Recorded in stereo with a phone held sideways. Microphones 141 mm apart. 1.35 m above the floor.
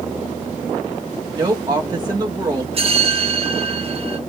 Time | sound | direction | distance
1.3 | a woman speaking | 25° right (ahead or behind) | 1.2 m
2.7 | a bell | 45° right (ahead or behind) | 1.0 m